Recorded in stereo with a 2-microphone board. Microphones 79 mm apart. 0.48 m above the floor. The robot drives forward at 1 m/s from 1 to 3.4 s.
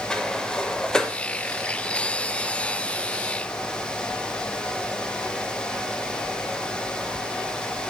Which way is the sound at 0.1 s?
10° left (ahead or behind).